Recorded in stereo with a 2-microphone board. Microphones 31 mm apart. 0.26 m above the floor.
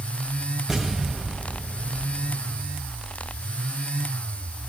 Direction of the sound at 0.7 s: 10° right (ahead or behind).